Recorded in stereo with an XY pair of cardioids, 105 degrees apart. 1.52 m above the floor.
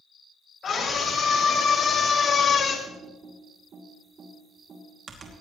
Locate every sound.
0.6 s a scream: 45° left, 6 m
2.9 s typing on a keyboard: 50° right, 2.5 m